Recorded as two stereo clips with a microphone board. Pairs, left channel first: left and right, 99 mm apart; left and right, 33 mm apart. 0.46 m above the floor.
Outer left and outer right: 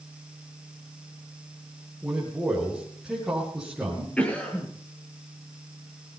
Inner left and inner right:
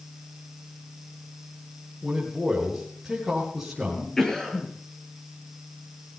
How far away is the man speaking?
About 8.5 m.